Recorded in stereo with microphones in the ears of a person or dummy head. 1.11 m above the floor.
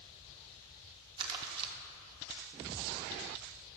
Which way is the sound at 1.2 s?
25° right (ahead or behind).